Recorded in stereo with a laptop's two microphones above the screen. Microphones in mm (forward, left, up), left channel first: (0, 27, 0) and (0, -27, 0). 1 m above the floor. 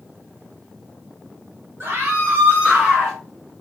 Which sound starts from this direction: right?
A scream, at 1.8 s.